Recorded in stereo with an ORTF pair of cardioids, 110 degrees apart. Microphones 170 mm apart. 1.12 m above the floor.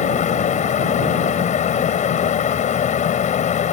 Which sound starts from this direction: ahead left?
A fan, at 0.0 s.